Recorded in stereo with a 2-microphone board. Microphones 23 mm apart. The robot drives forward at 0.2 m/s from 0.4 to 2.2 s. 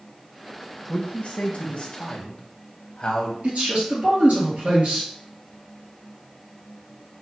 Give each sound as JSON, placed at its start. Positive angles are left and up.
{"t": 0.9, "sound": "a man speaking", "side_deg": 65, "distance_m": 0.5}
{"t": 3.4, "sound": "a man speaking", "side_deg": -65, "distance_m": 1.9}